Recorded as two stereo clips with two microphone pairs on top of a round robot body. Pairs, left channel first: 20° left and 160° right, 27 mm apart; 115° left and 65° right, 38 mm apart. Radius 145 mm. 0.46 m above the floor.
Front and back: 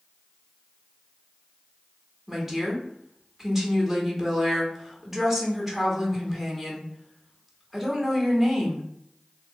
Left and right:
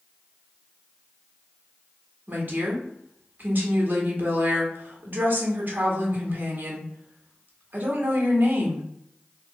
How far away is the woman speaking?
About 1.7 m.